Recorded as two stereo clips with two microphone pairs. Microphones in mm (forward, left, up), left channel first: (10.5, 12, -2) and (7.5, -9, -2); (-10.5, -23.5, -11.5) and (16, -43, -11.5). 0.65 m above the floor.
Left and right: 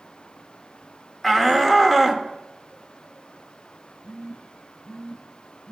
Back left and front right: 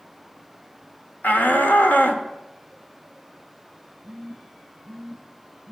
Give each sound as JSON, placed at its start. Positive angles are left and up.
{"t": 1.2, "sound": "a shout", "azimuth_deg": 160, "distance_m": 1.5}
{"t": 4.0, "sound": "a phone buzzing", "azimuth_deg": 55, "distance_m": 5.5}